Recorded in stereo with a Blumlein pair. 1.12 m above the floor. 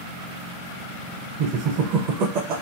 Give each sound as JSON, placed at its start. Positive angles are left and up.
{"t": 1.4, "sound": "laughter", "azimuth_deg": -35, "distance_m": 0.5}